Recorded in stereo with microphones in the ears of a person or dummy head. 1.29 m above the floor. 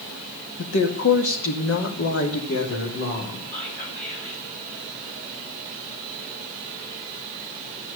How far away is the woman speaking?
About 2.0 m.